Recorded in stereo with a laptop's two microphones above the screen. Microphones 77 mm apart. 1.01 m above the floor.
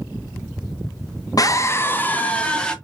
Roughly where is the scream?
Left.